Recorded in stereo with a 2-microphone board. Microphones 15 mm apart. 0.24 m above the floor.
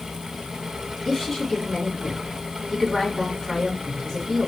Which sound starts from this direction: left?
A woman speaking, at 1.1 s.